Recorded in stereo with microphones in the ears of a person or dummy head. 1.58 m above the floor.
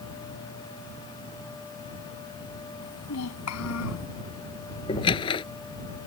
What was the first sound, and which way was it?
A child speaking, 85° left.